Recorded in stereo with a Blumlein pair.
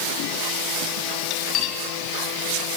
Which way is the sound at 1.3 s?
35° left.